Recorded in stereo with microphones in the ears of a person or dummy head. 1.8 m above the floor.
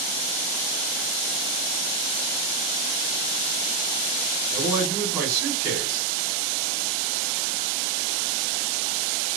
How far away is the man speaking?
About 1.6 m.